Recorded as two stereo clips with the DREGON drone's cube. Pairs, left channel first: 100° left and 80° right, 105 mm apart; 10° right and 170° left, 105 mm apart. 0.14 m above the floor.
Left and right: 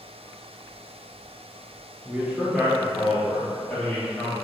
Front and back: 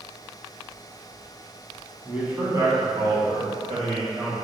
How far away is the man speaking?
About 1.0 m.